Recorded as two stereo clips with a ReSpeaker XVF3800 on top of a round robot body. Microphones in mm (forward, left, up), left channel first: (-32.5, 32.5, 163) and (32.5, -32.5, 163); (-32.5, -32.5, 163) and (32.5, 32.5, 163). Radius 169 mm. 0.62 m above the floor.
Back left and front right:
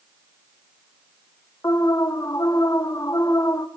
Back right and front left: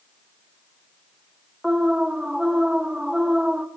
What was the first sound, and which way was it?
An alarm, 125° left.